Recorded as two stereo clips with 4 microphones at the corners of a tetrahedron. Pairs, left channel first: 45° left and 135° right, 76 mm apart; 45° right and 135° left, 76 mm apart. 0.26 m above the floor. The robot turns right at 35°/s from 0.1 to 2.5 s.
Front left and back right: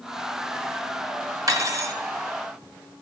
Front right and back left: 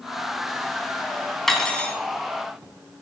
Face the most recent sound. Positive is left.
turn(degrees=-95)